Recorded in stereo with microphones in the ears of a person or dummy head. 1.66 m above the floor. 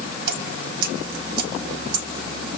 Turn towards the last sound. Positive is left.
turn(degrees=-60)  # may be behind; listen again after turning